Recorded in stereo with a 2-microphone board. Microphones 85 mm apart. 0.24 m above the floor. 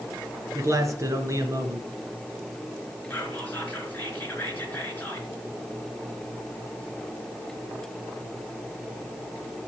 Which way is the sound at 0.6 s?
35° right (ahead or behind).